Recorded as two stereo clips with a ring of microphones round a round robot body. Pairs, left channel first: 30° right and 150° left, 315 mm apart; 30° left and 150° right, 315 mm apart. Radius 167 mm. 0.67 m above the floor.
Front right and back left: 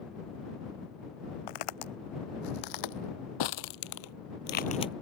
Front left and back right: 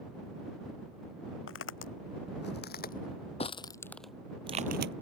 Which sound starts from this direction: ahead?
Footsteps, at 1.5 s.